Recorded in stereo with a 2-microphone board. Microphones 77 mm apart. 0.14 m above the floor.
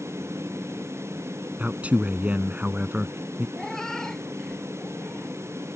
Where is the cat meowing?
5° left (ahead or behind).